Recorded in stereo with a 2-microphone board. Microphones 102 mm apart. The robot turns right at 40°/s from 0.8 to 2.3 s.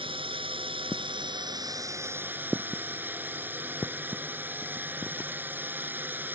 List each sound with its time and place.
0.0 s a drone: 80° right; by 6.3 s 20° right